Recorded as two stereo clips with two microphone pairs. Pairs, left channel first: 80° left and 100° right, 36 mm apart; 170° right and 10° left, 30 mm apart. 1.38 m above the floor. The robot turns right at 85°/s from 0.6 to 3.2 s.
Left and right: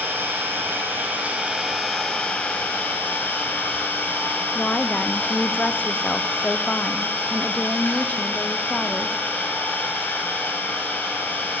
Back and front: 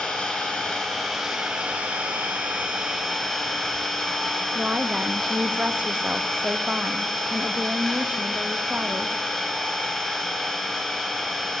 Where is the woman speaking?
40° left, 0.6 m.